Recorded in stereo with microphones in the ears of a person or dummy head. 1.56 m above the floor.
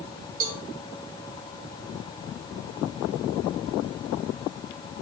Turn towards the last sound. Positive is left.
turn(degrees=-50)  # may be behind; listen again after turning